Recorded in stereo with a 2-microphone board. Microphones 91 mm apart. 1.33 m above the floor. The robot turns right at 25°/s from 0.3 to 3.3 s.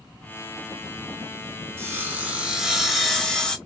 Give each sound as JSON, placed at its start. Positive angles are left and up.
{"t": 1.8, "sound": "sawing", "azimuth_deg": -30, "distance_m": 0.9}